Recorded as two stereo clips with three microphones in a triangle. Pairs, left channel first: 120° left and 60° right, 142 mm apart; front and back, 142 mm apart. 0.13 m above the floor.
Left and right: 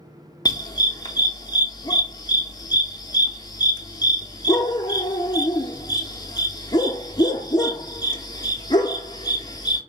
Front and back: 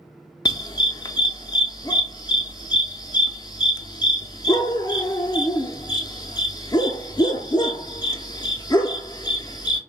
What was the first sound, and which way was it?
A dog barking, 60° left.